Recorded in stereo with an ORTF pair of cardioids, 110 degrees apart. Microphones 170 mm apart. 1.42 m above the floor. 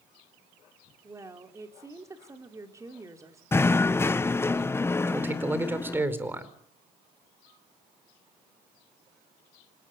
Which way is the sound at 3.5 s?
15° left.